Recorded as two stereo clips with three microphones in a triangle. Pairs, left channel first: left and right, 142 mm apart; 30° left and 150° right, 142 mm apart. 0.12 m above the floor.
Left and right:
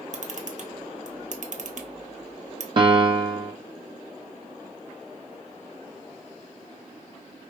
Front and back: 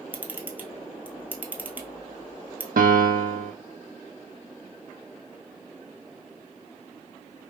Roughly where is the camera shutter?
Right.